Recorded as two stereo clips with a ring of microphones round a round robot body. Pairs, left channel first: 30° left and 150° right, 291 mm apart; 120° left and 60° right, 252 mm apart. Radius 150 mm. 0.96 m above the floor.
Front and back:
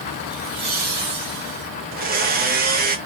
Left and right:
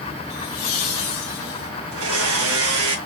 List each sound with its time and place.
0.3 s laughter: 125° left, 0.8 m; by 1.7 s 170° left, 1.6 m
1.9 s a blender: 90° right, 0.9 m